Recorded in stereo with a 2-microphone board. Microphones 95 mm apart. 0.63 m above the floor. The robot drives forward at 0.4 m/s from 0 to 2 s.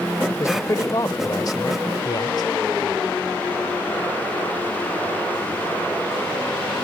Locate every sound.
0.4 s a man speaking: 35° left (ahead or behind); by 2.5 s 50° left (ahead or behind)